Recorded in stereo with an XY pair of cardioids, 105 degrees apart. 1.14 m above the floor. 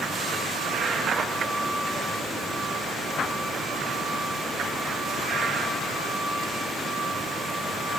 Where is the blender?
No blender in this recording.